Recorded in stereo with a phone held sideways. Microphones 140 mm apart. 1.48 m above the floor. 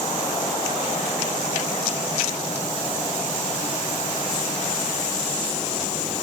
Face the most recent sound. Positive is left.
No sound to turn to.